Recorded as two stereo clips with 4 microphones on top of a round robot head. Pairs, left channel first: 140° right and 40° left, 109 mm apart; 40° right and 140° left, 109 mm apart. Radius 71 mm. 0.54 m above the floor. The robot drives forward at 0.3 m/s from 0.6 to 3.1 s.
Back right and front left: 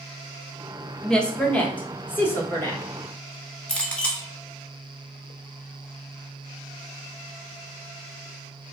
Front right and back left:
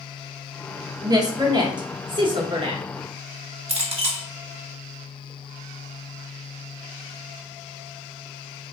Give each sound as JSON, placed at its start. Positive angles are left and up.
{"t": 1.0, "sound": "a woman speaking", "azimuth_deg": 140, "distance_m": 1.0}
{"t": 3.7, "sound": "a clink", "azimuth_deg": 140, "distance_m": 1.1}